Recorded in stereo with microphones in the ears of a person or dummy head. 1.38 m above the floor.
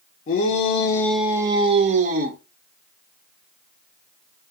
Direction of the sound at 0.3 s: 55° left (ahead or behind).